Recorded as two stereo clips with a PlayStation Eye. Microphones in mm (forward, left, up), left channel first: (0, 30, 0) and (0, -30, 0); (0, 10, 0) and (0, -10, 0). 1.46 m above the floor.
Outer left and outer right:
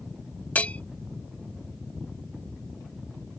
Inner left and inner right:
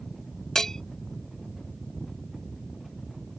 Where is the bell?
25° left (ahead or behind).